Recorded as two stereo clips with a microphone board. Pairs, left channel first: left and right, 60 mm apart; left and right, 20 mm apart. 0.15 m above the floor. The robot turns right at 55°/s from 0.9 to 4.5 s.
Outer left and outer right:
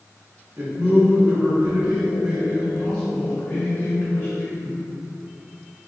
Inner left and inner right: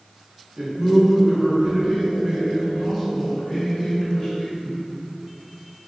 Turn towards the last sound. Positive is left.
turn(degrees=110)